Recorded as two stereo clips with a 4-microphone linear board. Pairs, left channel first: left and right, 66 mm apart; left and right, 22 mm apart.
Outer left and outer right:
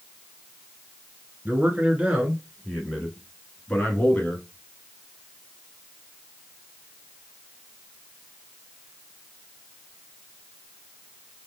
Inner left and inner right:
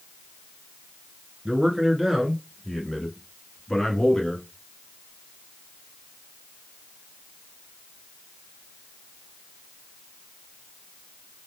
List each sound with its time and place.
1.4 s a man speaking: 25° right (ahead or behind), 1.8 m; by 4.5 s 25° left (ahead or behind), 1.9 m